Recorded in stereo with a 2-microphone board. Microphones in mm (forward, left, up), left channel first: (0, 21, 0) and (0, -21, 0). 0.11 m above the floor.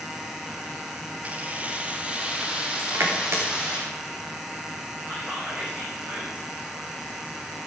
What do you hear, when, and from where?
1.2 s keys jangling: 35° right (ahead or behind), 1.8 m; by 3.8 s 20° right (ahead or behind), 4.5 m
2.8 s crushing: 80° right, 4.5 m
5.1 s whispering: 35° right (ahead or behind), 6 m